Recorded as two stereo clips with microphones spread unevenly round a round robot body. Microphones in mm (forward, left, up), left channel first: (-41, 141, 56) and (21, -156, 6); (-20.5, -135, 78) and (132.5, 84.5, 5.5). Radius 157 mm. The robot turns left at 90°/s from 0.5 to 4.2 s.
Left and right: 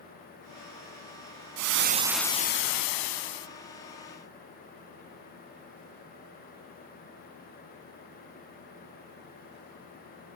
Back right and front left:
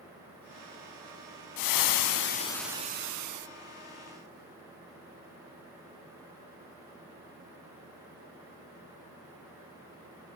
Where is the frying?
115° right, 0.7 m; by 3.5 s 70° left, 0.7 m.